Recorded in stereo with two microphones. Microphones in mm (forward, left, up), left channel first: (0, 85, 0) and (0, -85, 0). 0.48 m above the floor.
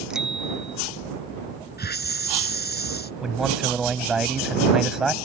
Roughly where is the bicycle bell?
Centre.